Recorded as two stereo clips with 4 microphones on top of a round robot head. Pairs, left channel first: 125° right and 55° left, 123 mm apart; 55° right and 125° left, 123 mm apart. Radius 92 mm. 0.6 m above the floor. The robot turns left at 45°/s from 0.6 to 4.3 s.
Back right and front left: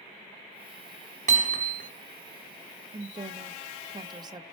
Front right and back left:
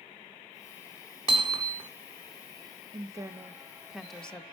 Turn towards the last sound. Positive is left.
turn(degrees=25)